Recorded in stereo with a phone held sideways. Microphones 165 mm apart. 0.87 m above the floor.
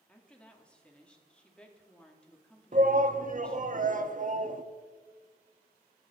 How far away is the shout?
About 1.1 m.